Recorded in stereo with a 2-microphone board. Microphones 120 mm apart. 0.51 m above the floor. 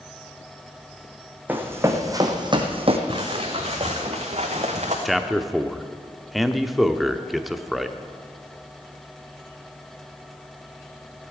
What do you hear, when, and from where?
1.5 s running footsteps: 15° right (ahead or behind), 1.9 m; by 3.0 s 55° right (ahead or behind), 1.6 m
3.1 s footsteps: 45° right (ahead or behind), 3 m; by 5.0 s 70° right (ahead or behind), 3 m
5.0 s a man speaking: centre (ahead or behind), 0.7 m